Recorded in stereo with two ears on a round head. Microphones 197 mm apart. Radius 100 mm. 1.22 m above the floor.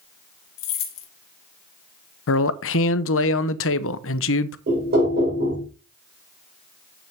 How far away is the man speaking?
About 0.7 m.